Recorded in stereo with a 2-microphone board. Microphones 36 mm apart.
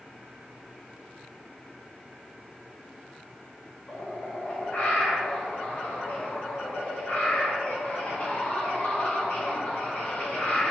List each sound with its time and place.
3.9 s a bird: 45° left (ahead or behind), 0.7 m